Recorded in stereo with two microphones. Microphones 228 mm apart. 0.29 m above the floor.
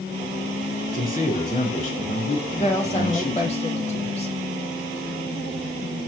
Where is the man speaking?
35° left (ahead or behind), 4 m.